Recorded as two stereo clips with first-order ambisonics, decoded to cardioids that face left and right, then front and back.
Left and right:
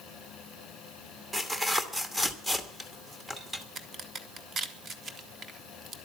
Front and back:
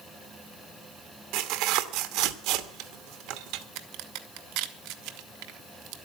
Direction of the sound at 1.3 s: 175° right.